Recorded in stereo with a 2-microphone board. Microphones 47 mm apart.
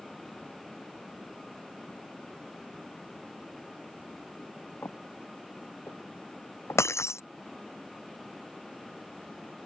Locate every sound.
4.8 s footsteps: 70° left (ahead or behind)
6.8 s breaking glass: 80° left